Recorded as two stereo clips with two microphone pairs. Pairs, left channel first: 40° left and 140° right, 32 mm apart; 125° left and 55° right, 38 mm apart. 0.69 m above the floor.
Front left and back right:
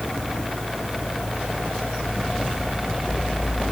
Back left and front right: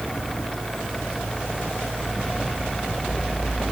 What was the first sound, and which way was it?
Only background noise.